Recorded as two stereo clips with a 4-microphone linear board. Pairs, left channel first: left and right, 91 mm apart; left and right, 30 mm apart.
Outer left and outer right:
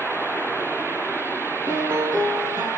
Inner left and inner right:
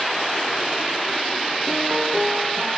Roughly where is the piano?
Right.